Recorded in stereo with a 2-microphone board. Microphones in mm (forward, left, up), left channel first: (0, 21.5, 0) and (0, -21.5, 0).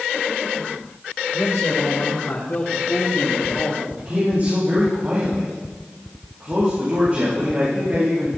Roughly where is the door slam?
I don't hear a door slam.